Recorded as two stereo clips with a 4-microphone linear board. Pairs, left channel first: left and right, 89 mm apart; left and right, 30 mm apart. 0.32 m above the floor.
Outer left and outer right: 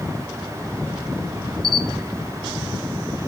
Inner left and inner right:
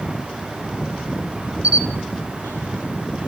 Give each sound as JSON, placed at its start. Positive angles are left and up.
{"t": 1.6, "sound": "a camera shutter", "side_deg": -50, "distance_m": 0.9}